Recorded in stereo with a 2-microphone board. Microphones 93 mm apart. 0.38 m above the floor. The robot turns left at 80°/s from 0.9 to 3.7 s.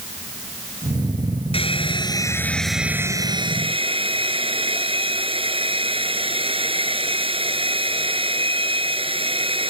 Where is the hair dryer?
90° left; by 9.7 s 80° right.